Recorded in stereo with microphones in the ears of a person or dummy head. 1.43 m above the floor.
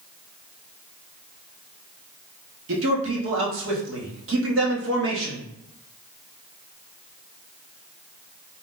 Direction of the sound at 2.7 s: 70° right (ahead or behind).